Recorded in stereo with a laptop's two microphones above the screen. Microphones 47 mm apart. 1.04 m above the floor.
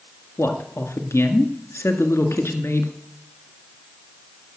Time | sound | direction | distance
0.4 | a man speaking | 75° left (ahead or behind) | 1.8 m